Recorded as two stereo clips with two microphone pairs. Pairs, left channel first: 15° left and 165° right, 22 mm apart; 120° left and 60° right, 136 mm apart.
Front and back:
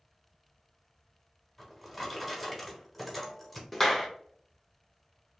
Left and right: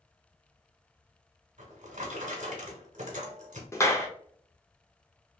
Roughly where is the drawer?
Right.